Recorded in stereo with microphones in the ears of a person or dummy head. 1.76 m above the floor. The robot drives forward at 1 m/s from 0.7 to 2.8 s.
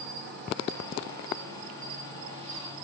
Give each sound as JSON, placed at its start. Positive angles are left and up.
{"t": 0.0, "sound": "an insect", "side_deg": -60, "distance_m": 2.5}